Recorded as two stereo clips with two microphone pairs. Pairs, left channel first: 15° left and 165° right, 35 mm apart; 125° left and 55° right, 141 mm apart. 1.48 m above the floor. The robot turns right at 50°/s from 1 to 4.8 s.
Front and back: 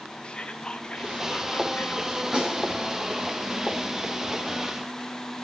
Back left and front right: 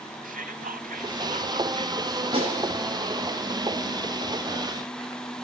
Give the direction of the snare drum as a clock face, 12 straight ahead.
3 o'clock.